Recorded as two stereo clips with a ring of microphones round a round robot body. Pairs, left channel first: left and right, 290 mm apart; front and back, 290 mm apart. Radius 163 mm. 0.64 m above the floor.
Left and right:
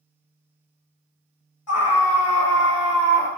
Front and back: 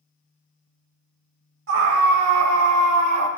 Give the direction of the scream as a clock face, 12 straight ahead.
8 o'clock.